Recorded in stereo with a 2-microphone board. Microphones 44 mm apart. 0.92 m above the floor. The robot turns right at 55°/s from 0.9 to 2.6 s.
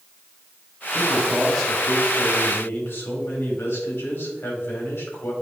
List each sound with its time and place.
0.9 s a man speaking: 25° right, 2.5 m; by 5.3 s 65° left, 2.5 m